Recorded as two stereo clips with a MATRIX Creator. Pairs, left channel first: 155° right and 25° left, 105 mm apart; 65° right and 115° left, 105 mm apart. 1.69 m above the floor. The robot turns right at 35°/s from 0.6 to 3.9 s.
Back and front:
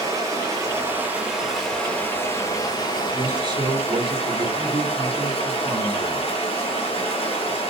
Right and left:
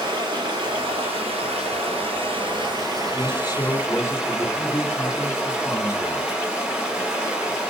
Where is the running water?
75° left, 7 m; by 7.7 s 165° right, 7 m.